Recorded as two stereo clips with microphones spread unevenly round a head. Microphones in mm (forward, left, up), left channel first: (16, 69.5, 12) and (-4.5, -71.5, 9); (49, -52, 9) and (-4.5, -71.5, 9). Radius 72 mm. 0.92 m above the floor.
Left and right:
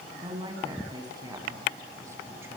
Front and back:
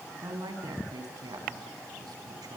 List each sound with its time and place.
0.2 s a woman speaking: 160° right, 7 m; by 2.6 s 175° right, 6.5 m